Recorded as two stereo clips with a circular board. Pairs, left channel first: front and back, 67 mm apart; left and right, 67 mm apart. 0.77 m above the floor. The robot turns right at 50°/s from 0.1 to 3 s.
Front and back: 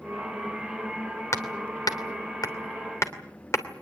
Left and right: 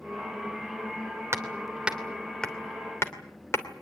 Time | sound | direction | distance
1.3 | hammering | 40° right | 2.5 m